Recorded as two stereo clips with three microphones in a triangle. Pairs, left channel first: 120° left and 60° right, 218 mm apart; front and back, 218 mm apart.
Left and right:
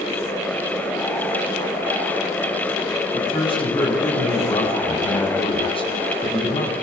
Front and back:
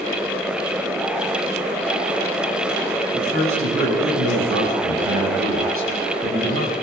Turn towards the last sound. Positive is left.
turn(degrees=-175)